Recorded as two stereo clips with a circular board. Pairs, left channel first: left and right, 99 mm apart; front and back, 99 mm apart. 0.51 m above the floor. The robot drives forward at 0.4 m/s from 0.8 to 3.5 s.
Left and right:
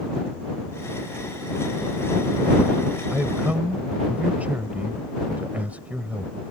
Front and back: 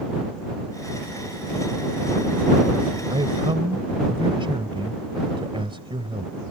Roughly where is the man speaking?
Behind.